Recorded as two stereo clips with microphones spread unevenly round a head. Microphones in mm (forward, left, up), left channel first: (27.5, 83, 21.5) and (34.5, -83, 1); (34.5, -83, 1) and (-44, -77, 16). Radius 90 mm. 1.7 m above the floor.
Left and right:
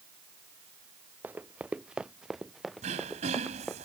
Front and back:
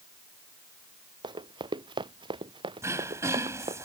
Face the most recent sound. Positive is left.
turn(degrees=-145)